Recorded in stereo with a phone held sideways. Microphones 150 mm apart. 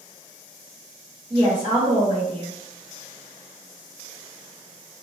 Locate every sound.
1.3 s a woman speaking: 40° right (ahead or behind), 1.1 m